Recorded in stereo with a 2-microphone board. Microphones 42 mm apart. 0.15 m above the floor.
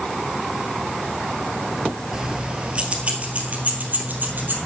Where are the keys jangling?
15° right (ahead or behind), 2.0 m; by 4.6 s 50° right (ahead or behind), 3 m.